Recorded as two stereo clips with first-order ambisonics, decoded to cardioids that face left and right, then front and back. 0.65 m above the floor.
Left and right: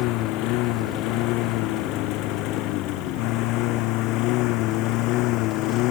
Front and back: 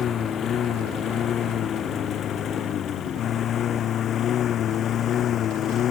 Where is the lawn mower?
60° left; by 5.9 s 55° left.